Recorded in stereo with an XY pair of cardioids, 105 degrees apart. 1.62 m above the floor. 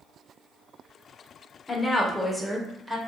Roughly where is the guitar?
I don't hear a guitar.